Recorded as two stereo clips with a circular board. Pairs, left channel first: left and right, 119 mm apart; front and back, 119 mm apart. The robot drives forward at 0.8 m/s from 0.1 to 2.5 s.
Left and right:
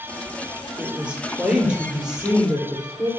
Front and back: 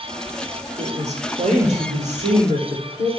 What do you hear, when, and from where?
0.8 s a woman speaking: 170° right, 3.5 m; by 3.1 s 175° right, 4.5 m